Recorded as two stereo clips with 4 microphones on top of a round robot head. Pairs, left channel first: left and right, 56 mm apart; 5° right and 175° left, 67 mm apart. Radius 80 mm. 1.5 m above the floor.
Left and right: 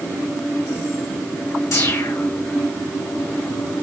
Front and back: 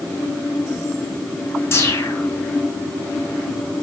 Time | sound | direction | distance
1.7 | a whoosh | 45° left | 4 m